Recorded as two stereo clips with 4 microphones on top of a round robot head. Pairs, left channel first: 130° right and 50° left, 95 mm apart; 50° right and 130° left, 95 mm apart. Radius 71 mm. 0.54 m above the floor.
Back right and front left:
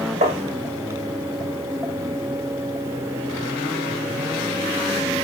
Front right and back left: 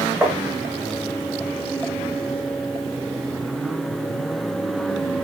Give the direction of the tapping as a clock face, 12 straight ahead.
10 o'clock.